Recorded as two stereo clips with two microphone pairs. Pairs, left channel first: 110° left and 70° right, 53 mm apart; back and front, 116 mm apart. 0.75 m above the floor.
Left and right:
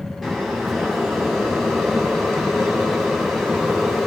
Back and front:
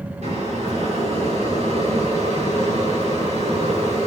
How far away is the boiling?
About 7 m.